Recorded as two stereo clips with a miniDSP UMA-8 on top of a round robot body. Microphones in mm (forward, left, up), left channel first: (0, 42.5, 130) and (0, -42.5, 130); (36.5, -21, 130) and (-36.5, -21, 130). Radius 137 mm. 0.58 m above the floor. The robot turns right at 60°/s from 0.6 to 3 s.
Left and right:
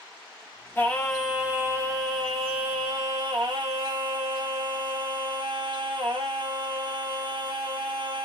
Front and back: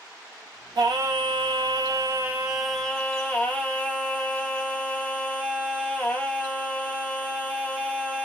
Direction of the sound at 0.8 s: 155° left.